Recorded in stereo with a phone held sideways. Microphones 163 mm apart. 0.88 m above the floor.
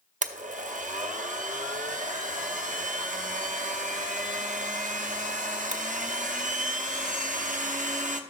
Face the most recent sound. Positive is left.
turn(degrees=-50)  # may be behind; listen again after turning